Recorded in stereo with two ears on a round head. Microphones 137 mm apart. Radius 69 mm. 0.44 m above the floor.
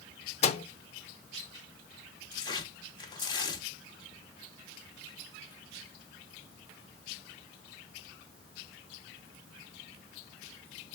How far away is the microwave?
About 0.7 m.